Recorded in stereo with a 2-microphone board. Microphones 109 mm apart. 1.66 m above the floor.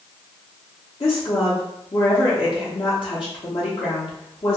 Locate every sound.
1.0 s a woman speaking: 55° left (ahead or behind), 0.8 m